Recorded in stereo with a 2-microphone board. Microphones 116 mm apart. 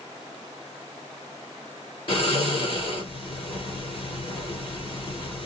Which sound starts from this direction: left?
Snoring, at 2.1 s.